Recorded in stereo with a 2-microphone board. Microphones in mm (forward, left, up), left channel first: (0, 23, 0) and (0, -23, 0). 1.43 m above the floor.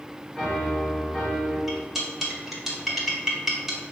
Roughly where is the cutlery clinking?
Centre.